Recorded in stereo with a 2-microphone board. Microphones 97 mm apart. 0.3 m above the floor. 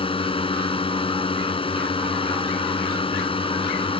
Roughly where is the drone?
Left.